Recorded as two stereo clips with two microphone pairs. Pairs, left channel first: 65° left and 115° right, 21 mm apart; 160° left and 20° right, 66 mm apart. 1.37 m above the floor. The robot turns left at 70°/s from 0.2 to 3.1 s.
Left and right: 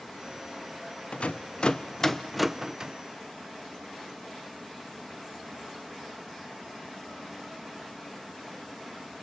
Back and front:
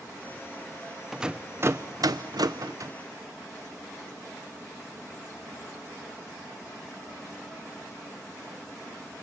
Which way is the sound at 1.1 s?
65° left.